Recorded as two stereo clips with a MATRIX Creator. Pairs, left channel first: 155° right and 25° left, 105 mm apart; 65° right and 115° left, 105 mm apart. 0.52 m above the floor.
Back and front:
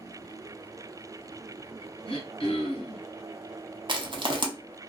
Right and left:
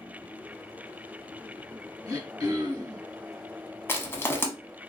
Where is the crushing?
5° right, 0.6 m.